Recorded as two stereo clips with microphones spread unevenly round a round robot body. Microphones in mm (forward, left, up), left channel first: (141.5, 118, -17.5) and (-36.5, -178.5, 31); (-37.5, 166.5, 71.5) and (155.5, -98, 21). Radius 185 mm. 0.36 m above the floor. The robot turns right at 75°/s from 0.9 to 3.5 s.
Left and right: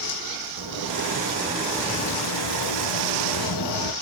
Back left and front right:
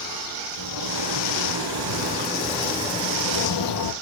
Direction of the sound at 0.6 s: 90° right.